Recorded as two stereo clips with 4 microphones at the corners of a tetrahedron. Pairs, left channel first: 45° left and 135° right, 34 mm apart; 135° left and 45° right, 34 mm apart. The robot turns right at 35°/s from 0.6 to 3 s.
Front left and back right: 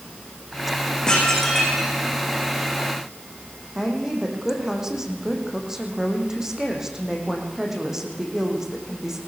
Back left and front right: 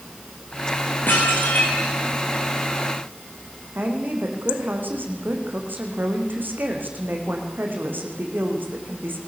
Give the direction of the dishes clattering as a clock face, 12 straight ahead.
8 o'clock.